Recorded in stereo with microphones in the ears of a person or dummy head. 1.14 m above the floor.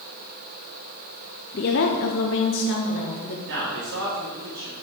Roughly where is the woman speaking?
Left.